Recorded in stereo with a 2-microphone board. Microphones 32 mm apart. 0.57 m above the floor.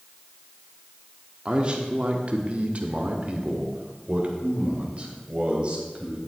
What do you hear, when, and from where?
1.4 s a man speaking: 30° right (ahead or behind), 1.2 m